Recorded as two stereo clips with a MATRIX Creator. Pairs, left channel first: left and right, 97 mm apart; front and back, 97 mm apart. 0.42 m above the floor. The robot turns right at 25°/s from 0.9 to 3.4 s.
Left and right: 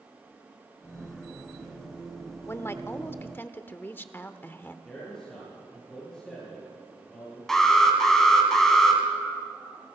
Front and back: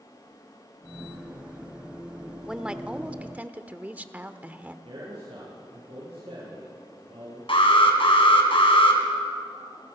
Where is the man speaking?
175° left, 7.5 m.